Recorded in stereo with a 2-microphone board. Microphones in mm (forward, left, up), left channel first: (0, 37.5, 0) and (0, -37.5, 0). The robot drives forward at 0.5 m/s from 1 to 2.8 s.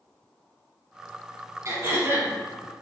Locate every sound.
1.6 s throat clearing: 45° right (ahead or behind), 1.1 m; by 2.3 s 35° right (ahead or behind), 1.3 m